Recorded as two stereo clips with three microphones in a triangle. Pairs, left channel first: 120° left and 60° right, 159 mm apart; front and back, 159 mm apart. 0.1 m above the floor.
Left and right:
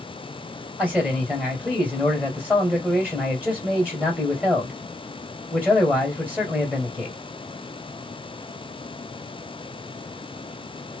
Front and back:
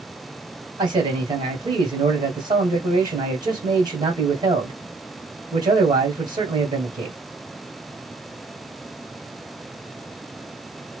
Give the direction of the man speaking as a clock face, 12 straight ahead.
5 o'clock.